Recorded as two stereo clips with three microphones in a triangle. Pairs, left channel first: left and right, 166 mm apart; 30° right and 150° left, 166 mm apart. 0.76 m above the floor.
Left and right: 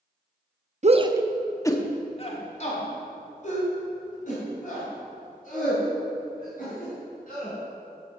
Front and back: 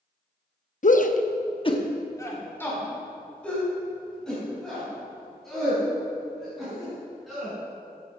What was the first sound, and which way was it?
A shout, 55° right.